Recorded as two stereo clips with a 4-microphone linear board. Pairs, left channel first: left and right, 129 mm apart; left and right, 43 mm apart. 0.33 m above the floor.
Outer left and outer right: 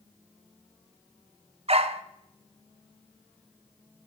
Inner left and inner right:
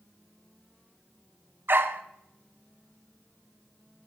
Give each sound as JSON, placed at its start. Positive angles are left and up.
{"t": 1.7, "sound": "a dog barking", "side_deg": -50, "distance_m": 0.6}